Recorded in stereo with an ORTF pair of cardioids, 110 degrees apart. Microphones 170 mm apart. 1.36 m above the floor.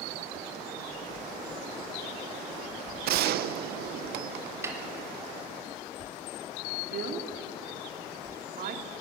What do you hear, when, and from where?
3.0 s a gunshot: 70° right, 0.7 m
4.6 s a snare drum: 15° right, 4 m
6.9 s a woman speaking: 65° right, 3 m